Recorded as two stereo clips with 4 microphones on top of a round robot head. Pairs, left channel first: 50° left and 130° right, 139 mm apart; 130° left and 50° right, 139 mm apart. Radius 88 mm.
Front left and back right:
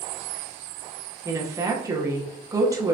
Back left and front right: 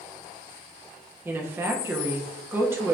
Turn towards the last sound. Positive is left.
turn(degrees=-100)